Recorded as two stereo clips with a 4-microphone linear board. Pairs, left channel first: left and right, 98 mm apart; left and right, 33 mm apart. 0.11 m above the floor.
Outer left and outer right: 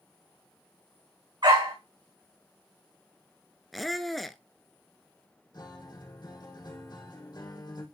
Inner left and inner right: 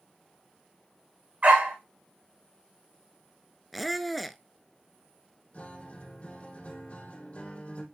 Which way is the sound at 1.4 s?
50° right (ahead or behind).